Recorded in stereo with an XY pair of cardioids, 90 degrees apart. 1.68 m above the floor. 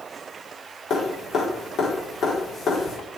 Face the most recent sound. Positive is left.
turn(degrees=65)